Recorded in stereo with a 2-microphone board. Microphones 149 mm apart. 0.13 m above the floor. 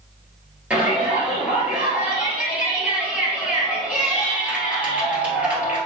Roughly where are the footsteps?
No footsteps in this recording.